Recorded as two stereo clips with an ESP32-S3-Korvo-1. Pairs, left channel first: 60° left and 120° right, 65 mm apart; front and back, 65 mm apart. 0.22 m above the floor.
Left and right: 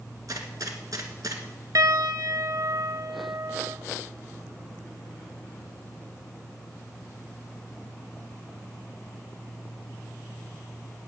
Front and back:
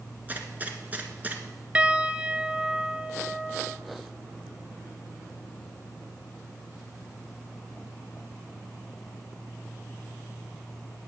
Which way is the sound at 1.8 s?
110° right.